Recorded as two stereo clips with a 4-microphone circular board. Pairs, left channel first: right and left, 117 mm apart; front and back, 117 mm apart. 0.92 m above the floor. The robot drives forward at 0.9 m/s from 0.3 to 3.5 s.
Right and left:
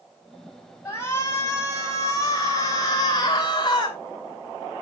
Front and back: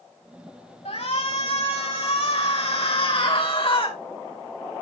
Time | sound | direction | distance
0.8 | a shout | 20° right | 5.5 m